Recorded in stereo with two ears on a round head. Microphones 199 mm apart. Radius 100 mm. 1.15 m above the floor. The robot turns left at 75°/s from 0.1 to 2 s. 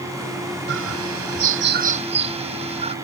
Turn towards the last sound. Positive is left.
turn(degrees=-150)